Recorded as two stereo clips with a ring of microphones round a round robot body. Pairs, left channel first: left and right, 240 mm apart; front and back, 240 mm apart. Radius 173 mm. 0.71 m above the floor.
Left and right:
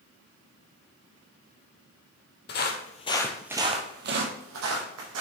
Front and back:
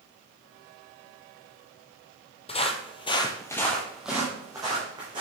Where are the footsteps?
60° left, 1.0 m; by 5.2 s 105° right, 1.6 m.